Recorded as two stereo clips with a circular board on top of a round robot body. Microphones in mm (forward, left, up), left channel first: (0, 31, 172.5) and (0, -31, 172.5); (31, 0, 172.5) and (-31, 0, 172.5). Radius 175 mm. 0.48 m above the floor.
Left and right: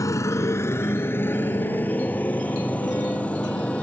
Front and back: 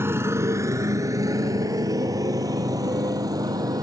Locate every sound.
0.0 s a motorcycle: 125° left; by 3.9 s 160° left